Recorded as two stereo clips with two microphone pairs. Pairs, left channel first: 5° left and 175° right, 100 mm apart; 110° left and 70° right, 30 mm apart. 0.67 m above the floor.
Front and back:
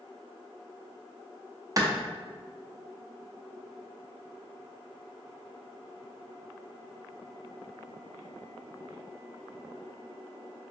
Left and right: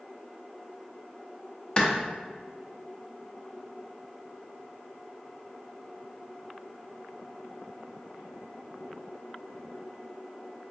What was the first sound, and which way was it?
A clap, 155° left.